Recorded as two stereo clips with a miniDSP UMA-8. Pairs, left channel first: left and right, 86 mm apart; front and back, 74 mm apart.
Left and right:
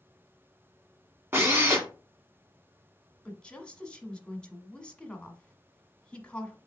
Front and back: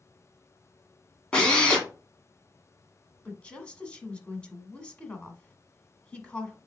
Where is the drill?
65° right, 1.6 m.